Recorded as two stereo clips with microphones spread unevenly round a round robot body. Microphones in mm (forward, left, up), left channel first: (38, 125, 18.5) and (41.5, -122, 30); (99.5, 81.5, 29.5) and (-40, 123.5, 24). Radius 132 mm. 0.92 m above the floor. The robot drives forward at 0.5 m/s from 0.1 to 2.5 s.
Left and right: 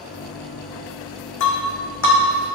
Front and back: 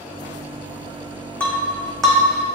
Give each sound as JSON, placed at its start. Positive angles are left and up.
{"t": 1.4, "sound": "breaking glass", "azimuth_deg": 65, "distance_m": 3.0}